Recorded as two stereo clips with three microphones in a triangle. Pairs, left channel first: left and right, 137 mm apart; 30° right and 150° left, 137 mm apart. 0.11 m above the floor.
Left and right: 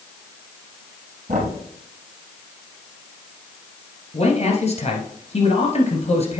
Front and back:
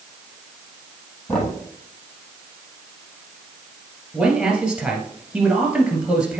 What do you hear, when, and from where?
1.3 s knocking: 110° right, 2.5 m
4.1 s a man speaking: 70° left, 1.9 m